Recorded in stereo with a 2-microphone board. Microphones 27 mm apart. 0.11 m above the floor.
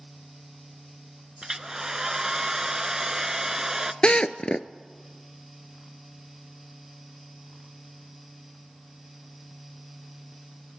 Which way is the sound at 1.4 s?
20° right (ahead or behind).